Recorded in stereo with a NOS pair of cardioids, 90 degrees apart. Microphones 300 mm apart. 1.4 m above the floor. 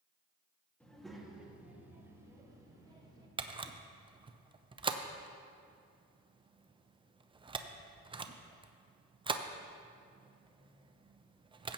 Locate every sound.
0.8 s a child speaking: 5° left, 2.0 m; by 3.3 s 15° right, 3 m
3.4 s a camera shutter: 15° right, 0.6 m